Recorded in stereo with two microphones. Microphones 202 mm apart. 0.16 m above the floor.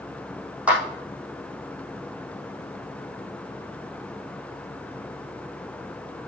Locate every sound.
0.7 s a clap: 5° right (ahead or behind), 5.5 m